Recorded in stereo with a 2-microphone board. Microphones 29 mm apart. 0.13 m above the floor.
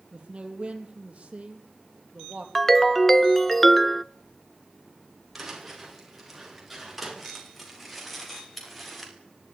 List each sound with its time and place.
0.1 s a man speaking: 35° right (ahead or behind), 4.5 m
2.5 s a ringtone: 10° left (ahead or behind), 0.6 m
5.3 s footsteps: 5° right (ahead or behind), 8.5 m; by 9.1 s 5° left (ahead or behind), 7.5 m